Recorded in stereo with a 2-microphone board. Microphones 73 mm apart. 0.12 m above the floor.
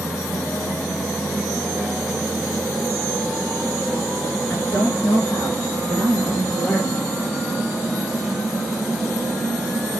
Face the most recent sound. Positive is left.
turn(degrees=25)  # may be behind; listen again after turning